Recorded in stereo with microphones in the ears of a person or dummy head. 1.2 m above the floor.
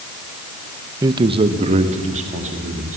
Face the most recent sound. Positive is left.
turn(degrees=-40)  # may be behind; listen again after turning